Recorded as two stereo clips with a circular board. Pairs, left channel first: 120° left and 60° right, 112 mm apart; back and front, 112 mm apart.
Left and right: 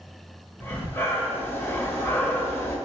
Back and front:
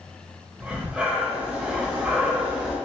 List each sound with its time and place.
0.6 s breathing: 70° left, 0.8 m